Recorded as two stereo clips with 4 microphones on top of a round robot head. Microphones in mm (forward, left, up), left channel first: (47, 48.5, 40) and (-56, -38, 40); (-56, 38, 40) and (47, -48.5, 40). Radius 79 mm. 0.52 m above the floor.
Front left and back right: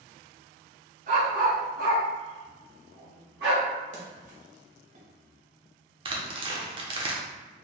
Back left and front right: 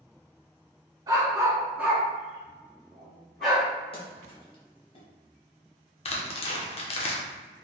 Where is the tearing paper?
175° left, 0.9 m.